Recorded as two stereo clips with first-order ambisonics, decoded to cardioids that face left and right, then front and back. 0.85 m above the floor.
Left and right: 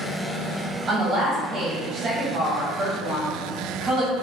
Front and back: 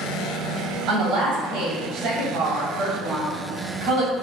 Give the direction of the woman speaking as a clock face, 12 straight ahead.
5 o'clock.